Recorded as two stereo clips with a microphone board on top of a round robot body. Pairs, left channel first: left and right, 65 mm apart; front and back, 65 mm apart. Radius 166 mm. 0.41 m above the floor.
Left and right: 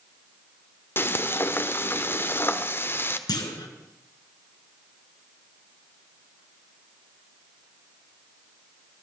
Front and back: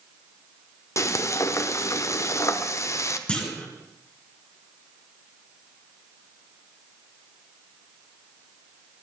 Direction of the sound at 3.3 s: 75° left.